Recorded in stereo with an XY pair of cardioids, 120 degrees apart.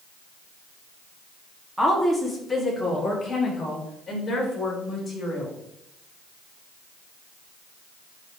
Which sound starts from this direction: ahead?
A woman speaking, at 1.8 s.